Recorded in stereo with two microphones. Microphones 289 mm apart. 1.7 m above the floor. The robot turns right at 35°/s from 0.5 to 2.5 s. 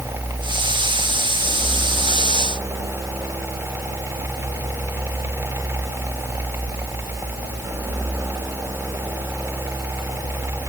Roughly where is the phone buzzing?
I don't hear a phone buzzing.